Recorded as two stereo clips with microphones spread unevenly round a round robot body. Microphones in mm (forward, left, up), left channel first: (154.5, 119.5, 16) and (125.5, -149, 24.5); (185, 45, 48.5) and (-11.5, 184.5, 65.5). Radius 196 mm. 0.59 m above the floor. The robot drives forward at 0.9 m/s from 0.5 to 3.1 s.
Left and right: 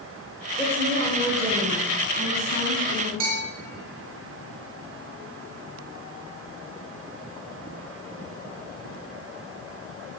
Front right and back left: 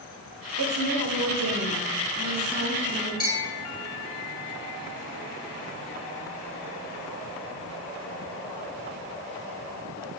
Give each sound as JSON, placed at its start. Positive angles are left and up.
{"t": 0.6, "sound": "a woman speaking", "azimuth_deg": 165, "distance_m": 1.6}
{"t": 3.2, "sound": "a bell", "azimuth_deg": -155, "distance_m": 1.8}